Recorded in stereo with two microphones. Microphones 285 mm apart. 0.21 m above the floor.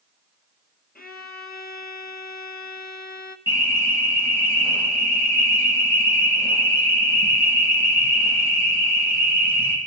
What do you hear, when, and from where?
0.9 s a violin: 35° left (ahead or behind), 1.0 m
3.5 s an alarm: 10° right (ahead or behind), 4.5 m